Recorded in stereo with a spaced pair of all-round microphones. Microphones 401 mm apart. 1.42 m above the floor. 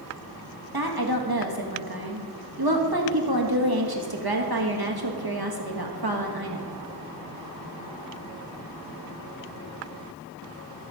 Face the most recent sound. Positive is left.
turn(degrees=-60)  # may be behind; listen again after turning